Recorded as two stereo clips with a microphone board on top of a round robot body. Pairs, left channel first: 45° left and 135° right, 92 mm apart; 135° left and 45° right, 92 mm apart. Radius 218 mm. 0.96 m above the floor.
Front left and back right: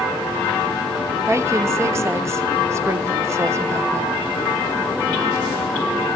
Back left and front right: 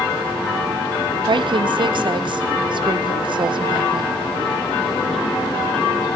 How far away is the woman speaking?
About 1.2 m.